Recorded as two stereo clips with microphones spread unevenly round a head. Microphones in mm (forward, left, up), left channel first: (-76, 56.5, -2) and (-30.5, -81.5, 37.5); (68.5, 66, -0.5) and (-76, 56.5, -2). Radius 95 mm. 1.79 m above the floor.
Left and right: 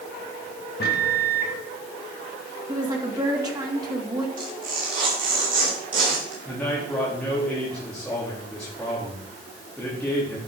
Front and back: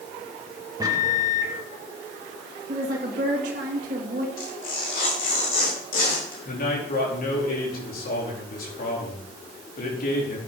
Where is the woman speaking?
130° right, 2 m.